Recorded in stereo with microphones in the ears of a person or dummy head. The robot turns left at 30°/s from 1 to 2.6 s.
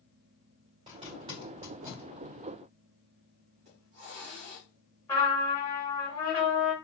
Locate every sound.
0.9 s a zipper: 30° right (ahead or behind), 2 m; by 2.1 s 5° left (ahead or behind), 2 m
3.6 s a hiss: 30° right (ahead or behind), 1.7 m
5.1 s a trumpet: 20° left (ahead or behind), 2.5 m